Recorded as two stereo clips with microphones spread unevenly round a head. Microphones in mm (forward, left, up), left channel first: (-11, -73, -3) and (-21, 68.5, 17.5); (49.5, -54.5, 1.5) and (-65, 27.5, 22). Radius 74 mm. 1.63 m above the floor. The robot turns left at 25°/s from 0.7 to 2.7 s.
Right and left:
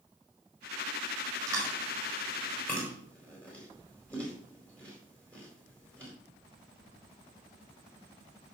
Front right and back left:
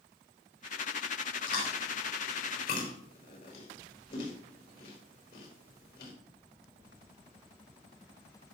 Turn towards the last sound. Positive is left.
turn(degrees=-5)